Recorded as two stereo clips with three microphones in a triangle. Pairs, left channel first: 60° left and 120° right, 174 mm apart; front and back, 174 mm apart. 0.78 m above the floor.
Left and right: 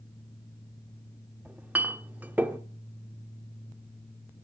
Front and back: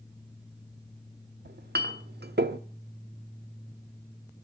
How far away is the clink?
About 0.9 m.